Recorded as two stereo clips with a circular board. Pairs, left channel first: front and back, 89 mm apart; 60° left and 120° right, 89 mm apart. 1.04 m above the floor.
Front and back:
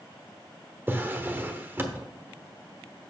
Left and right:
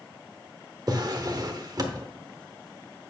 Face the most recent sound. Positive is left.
turn(degrees=-120)